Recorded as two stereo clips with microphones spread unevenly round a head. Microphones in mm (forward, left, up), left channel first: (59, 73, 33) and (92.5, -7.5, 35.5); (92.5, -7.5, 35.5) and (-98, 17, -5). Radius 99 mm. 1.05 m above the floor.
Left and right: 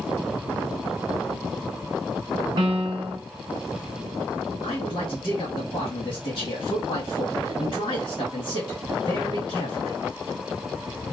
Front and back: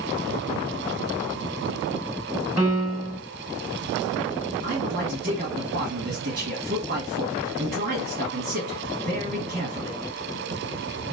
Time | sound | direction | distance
2.6 | a piano | 115° right | 1.2 m
4.6 | a man speaking | 145° left | 1.6 m